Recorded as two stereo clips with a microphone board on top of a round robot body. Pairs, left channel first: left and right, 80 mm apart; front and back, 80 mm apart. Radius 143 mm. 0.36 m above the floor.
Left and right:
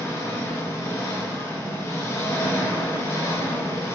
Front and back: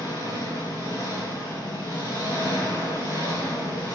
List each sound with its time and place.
0.0 s an engine running: 35° left, 4 m